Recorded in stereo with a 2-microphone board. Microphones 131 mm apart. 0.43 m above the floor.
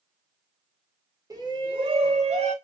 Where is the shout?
25° right (ahead or behind), 0.9 m; by 2.5 s 55° right (ahead or behind), 1.4 m.